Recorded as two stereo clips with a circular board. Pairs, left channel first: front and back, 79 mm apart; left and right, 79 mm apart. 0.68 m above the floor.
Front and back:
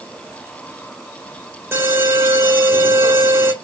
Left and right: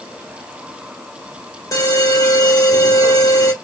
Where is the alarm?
125° left, 2.5 m.